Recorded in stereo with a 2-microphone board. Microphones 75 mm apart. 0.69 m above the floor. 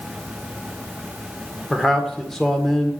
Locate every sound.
1.7 s a man speaking: 5° left (ahead or behind), 1.8 m